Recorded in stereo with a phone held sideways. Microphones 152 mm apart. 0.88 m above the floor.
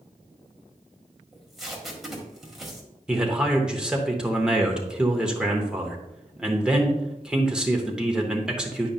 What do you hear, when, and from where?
1.3 s tape being pulled: centre (ahead or behind), 1.5 m
3.1 s a man speaking: 5° right (ahead or behind), 1.0 m